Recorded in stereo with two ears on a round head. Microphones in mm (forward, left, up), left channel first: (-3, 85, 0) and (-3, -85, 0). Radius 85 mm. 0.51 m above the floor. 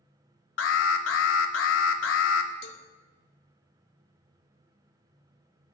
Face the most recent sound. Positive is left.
turn(degrees=65)  # may be behind; listen again after turning